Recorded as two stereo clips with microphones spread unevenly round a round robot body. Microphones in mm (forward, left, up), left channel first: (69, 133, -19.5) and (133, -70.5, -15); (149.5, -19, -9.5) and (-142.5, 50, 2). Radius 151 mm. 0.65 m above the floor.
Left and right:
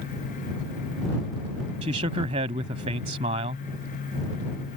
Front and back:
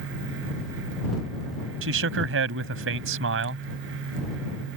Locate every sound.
1.8 s a man speaking: 145° right